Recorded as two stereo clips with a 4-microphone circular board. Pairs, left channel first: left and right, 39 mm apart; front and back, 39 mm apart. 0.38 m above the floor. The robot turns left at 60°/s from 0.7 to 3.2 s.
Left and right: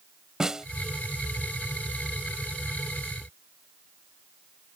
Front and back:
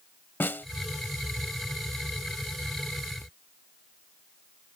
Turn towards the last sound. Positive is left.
turn(degrees=-165)